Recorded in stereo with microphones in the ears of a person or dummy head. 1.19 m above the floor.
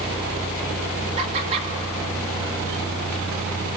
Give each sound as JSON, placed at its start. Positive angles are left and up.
{"t": 1.2, "sound": "laughter", "side_deg": -35, "distance_m": 2.5}